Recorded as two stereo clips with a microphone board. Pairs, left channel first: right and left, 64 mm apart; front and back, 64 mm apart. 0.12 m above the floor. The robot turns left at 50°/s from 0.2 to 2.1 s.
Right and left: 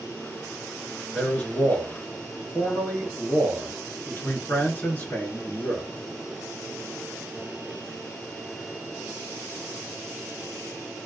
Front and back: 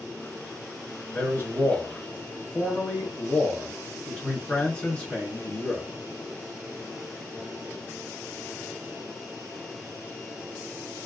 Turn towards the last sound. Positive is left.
turn(degrees=-60)